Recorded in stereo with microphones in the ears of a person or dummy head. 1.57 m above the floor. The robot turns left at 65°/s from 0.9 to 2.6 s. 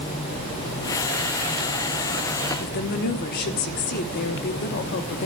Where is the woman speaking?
50° left (ahead or behind), 1.1 m.